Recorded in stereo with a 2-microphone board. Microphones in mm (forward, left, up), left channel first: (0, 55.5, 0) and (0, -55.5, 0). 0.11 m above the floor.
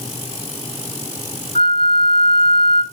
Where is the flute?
55° left (ahead or behind), 1.9 m.